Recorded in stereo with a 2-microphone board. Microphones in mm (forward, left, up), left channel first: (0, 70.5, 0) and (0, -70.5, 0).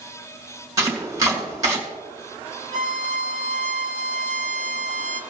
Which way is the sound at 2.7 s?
60° right (ahead or behind).